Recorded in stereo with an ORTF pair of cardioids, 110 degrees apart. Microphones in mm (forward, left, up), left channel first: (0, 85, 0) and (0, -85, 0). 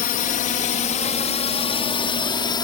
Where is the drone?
60° left; by 2.6 s 25° left.